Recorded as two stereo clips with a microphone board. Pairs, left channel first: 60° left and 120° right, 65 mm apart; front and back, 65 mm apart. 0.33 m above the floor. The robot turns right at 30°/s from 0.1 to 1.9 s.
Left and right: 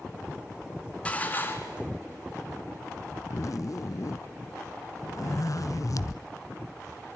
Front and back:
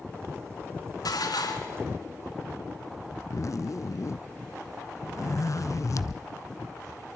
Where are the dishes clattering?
10° right, 2.5 m; by 1.8 s 15° left, 2.5 m.